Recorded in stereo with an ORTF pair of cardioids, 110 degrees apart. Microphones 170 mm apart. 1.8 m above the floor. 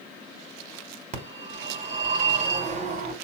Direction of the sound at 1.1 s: 45° right.